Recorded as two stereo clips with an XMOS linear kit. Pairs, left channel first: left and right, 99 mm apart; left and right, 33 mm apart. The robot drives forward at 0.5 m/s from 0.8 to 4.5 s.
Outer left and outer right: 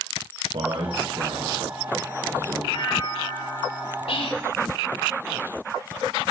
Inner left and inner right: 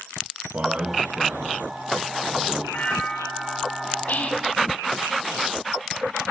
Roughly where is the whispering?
Left.